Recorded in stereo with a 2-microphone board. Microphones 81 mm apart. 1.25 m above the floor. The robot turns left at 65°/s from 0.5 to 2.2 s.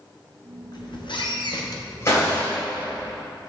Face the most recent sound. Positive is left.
turn(degrees=40)  # may be behind; listen again after turning